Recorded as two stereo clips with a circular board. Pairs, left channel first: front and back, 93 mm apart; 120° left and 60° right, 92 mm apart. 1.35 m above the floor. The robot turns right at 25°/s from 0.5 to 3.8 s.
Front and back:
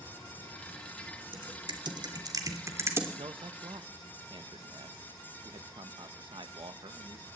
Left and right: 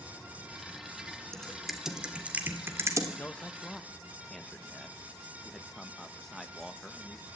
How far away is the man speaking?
About 1.6 m.